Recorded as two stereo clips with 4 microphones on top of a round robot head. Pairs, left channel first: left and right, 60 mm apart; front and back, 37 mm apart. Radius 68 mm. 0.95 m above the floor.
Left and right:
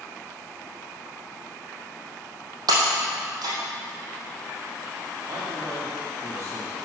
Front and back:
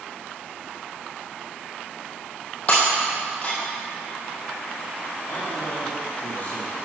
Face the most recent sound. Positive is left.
turn(degrees=-45)